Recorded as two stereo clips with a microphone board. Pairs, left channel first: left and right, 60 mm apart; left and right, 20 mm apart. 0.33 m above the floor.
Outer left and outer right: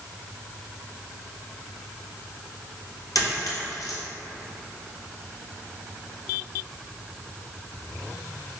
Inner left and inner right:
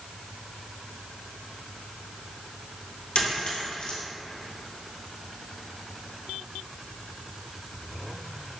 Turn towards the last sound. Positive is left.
turn(degrees=75)  # may be behind; listen again after turning